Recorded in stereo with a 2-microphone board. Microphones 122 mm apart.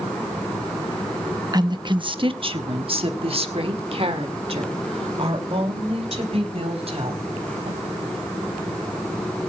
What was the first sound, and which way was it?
A woman speaking, 35° right (ahead or behind).